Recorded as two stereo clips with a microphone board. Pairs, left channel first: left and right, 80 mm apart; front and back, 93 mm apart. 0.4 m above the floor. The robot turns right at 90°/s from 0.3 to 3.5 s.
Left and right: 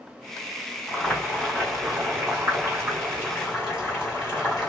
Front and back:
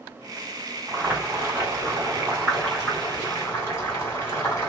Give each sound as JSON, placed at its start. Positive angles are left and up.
{"t": 0.9, "sound": "boiling", "azimuth_deg": 100, "distance_m": 1.5}